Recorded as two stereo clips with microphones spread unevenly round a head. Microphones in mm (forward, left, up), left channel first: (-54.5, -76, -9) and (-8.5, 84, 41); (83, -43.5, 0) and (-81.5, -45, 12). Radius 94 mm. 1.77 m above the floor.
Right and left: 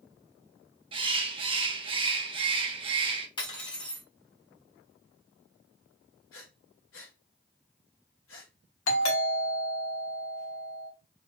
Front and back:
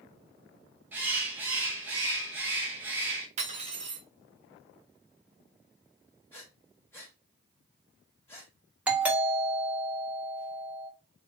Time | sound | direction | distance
0.9 | a bird | 105° left | 0.7 m
3.4 | cutlery clinking | straight behind | 1.3 m
6.3 | breathing | 75° right | 1.7 m
8.9 | a doorbell | 100° right | 1.4 m